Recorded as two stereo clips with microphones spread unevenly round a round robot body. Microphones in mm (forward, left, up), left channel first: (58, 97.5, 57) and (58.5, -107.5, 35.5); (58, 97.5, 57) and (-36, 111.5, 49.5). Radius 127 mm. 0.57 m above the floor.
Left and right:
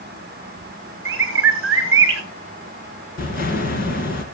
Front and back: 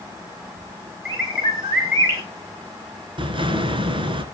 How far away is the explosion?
About 2.5 m.